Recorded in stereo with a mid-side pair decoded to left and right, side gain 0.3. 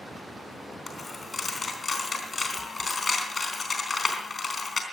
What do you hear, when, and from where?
0.9 s a dropped coin: 50° left, 3.5 m